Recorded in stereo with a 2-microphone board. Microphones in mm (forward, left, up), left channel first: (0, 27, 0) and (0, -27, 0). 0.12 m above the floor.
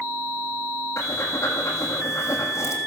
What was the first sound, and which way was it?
Breathing, 60° left (ahead or behind).